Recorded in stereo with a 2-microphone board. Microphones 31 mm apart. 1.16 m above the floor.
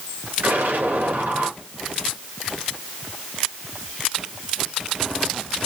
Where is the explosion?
80° right, 3.5 m.